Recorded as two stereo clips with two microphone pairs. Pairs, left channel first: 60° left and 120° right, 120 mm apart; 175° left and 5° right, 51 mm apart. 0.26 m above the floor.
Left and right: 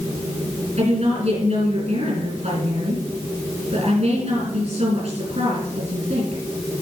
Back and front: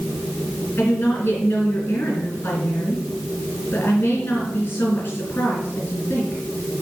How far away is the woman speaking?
About 4.5 m.